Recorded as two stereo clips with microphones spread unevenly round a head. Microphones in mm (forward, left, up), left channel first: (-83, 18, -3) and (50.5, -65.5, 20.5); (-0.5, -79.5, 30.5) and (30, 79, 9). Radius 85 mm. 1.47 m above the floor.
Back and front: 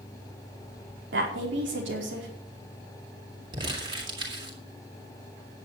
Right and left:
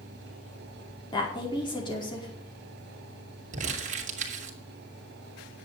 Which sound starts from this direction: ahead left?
Crumpling, at 3.5 s.